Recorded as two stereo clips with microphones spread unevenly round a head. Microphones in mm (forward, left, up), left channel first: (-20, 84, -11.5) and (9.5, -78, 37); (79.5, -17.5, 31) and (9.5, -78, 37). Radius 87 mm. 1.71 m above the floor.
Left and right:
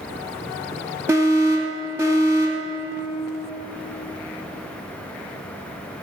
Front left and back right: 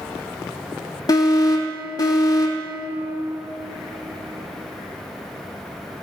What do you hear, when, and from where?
1.1 s an alarm: 5° right, 3 m